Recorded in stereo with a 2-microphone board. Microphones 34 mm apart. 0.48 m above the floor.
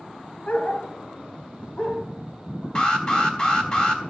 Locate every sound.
0.5 s a dog barking: 45° left (ahead or behind), 1.6 m; by 2.6 s 30° left (ahead or behind), 4.5 m
2.8 s an alarm: 25° left (ahead or behind), 3.5 m